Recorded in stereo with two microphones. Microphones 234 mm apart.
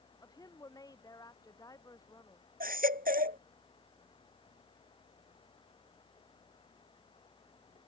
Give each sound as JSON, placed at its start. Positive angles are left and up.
{"t": 0.2, "sound": "a woman speaking", "side_deg": 15}
{"t": 2.6, "sound": "a baby crying", "side_deg": -35}